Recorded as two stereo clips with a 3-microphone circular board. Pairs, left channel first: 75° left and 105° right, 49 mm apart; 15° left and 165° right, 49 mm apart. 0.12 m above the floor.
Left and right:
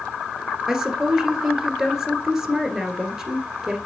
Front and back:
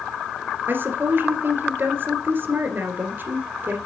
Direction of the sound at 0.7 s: Straight behind.